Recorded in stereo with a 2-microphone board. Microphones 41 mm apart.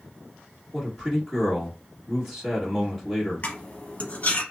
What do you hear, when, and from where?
0.7 s a man speaking: 5° right (ahead or behind), 1.4 m
3.4 s cutlery clinking: 40° left (ahead or behind), 0.9 m